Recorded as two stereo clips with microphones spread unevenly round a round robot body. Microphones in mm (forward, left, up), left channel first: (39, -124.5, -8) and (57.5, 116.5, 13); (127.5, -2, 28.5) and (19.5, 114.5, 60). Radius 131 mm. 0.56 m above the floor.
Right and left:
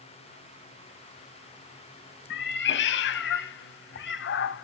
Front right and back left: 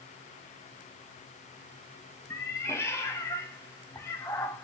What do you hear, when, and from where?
2.3 s a cat meowing: 135° right, 0.5 m